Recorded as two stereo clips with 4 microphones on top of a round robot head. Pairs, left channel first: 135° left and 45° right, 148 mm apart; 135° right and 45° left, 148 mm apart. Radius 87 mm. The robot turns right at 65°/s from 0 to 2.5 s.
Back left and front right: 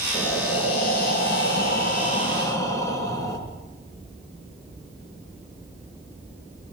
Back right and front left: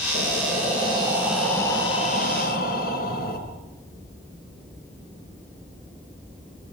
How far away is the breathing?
About 4 m.